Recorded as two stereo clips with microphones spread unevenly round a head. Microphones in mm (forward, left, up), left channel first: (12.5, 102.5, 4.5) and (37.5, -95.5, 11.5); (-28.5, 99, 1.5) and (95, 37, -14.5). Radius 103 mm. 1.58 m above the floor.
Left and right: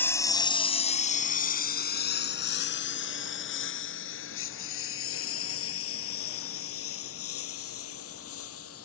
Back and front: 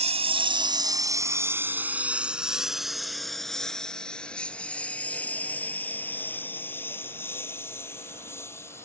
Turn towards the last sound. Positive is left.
turn(degrees=80)